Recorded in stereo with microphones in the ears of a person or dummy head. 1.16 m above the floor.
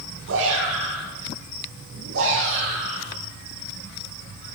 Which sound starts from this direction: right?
A shout, at 0.3 s.